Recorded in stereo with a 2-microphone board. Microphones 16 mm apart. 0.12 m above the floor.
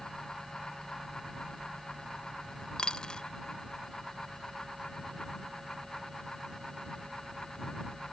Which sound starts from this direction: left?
A dropped coin, at 2.8 s.